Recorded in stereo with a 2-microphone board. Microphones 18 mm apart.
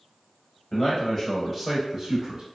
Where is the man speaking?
35° left (ahead or behind), 1.2 m; by 2.4 s 35° right (ahead or behind), 1.0 m.